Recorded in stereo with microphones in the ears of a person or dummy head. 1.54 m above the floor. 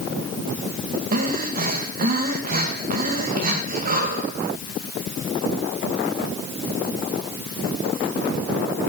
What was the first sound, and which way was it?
Breathing, 50° right (ahead or behind).